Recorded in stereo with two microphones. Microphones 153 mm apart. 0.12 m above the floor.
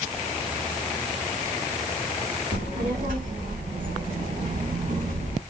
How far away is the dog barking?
No dog barking in this recording.